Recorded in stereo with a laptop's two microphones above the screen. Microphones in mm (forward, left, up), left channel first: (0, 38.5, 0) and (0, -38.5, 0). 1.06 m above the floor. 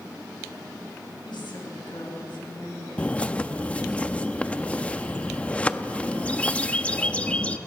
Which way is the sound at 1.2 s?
85° left.